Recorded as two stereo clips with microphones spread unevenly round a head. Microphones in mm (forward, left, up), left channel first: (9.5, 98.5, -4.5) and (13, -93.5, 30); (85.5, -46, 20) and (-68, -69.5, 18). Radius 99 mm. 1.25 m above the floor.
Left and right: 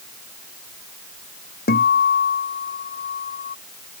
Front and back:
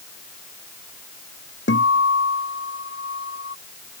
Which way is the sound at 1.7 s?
45° left.